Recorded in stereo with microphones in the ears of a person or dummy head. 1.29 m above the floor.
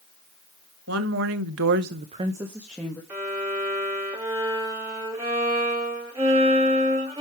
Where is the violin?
15° right (ahead or behind), 2.5 m.